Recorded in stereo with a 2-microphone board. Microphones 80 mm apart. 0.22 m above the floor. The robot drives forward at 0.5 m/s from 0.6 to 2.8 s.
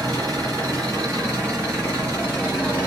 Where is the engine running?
50° right (ahead or behind), 1.8 m; by 2.9 s 30° right (ahead or behind), 2.5 m.